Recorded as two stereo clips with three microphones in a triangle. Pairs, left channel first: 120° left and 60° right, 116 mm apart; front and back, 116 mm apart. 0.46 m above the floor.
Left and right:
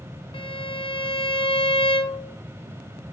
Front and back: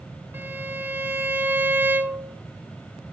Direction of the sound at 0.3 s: 110° left.